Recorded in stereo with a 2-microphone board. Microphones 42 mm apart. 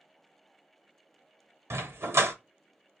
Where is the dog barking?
80° right, 0.7 m.